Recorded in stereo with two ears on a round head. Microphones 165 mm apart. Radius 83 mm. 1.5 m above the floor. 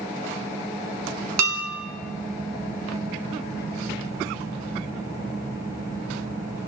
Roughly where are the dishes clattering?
Right.